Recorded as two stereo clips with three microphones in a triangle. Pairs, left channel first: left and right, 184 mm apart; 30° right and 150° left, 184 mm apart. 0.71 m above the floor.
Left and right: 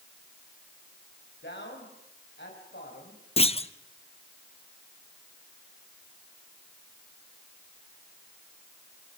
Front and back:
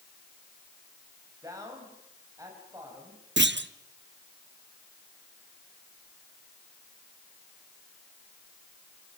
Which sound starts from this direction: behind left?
A clunk, at 3.4 s.